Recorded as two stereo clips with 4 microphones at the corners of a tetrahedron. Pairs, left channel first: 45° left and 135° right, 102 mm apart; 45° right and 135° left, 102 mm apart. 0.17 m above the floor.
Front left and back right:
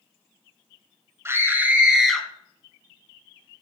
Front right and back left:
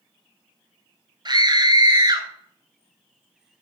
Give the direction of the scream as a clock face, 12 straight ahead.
6 o'clock.